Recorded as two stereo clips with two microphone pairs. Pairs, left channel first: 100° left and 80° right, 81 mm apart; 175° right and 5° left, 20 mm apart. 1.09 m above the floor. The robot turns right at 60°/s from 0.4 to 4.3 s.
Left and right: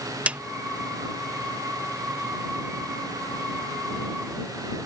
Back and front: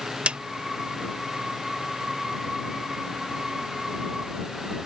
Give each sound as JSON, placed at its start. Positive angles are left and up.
{"t": 0.3, "sound": "a snare drum", "azimuth_deg": -10}